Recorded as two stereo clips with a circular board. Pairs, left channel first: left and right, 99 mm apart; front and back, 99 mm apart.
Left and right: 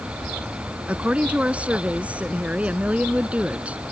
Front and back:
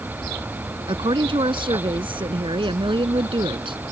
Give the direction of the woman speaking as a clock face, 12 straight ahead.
6 o'clock.